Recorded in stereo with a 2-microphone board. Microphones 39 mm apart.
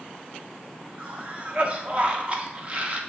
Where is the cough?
35° right (ahead or behind), 0.7 m.